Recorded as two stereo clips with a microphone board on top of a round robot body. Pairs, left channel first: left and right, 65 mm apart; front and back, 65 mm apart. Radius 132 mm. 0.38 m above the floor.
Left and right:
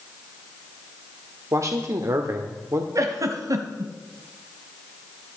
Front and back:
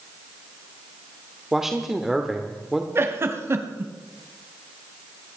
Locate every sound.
1.5 s a man speaking: 95° right, 1.4 m
3.0 s a giggle: 125° right, 1.3 m